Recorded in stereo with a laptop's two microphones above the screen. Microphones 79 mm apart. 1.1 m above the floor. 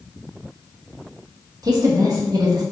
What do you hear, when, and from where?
1.6 s a woman speaking: 50° right (ahead or behind), 0.9 m